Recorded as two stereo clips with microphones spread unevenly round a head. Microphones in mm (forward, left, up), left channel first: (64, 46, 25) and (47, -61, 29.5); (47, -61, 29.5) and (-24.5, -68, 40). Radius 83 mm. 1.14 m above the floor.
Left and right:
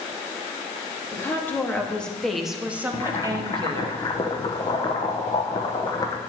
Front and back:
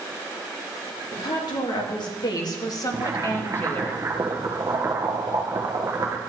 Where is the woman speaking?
15° left, 2.5 m; by 3.9 s 60° right, 1.4 m.